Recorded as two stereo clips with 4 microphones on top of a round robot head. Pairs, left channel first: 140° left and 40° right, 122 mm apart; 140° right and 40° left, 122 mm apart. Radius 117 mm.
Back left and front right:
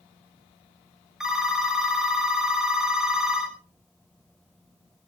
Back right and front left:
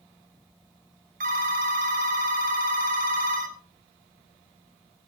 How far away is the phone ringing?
About 2 m.